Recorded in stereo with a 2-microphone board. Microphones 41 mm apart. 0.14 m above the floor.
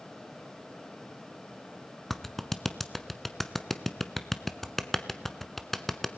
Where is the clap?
5° left (ahead or behind), 0.9 m.